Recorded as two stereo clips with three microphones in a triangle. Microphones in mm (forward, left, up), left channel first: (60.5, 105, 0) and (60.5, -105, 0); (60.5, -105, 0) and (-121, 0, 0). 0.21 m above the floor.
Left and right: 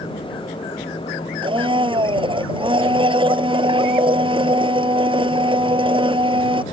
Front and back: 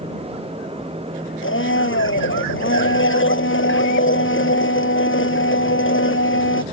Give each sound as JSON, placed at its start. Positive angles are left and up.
{"t": 1.4, "sound": "a blender", "azimuth_deg": -25}